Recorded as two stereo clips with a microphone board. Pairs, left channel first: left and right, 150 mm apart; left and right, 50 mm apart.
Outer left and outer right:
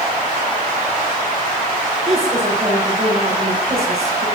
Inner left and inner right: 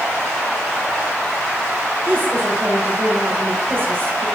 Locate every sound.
2.0 s a woman speaking: 40° right (ahead or behind), 3.5 m